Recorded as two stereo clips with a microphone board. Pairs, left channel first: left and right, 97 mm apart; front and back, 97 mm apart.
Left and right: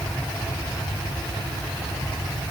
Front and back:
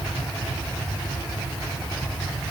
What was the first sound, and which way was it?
Only background noise.